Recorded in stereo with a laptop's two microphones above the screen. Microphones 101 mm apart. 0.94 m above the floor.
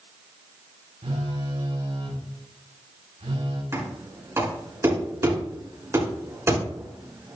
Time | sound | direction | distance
1.0 | a phone buzzing | 80° right | 4 m
3.7 | knocking | 25° right (ahead or behind) | 6.5 m